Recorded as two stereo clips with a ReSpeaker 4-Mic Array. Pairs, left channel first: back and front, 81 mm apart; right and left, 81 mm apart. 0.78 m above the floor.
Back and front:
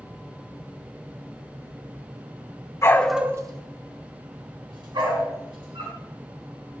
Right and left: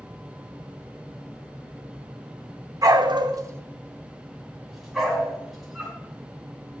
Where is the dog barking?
125° left, 0.7 m; by 6.0 s 5° right, 4 m.